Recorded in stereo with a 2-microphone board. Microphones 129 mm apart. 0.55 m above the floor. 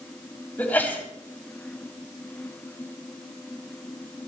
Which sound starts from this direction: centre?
A sneeze, at 0.6 s.